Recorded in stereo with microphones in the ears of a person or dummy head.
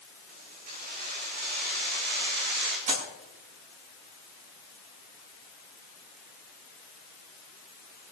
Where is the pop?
40° right (ahead or behind), 7.5 m.